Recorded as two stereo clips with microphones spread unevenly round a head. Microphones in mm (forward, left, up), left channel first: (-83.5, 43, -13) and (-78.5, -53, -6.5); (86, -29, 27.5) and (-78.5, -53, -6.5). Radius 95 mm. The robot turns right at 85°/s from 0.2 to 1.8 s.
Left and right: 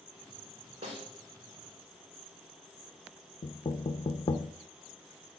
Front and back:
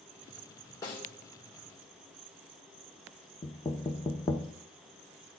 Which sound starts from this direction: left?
Knocking, at 3.4 s.